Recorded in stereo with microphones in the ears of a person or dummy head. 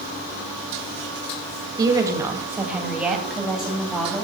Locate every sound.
1.8 s a woman speaking: 20° right (ahead or behind), 1.8 m; by 4.2 s 5° left (ahead or behind), 3 m